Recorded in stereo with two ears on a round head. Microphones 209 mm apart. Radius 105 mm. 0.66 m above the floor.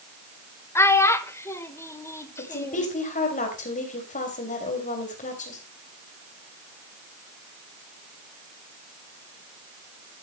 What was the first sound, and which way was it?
A child speaking, 10° left (ahead or behind).